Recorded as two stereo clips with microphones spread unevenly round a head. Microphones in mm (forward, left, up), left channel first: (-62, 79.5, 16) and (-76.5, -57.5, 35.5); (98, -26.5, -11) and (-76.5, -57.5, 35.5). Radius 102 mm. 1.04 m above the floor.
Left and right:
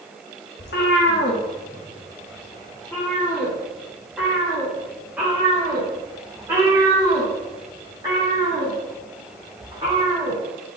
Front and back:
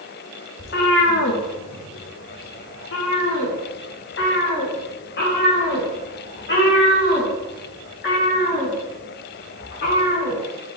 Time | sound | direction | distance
0.6 | a cat meowing | 65° left | 1.0 m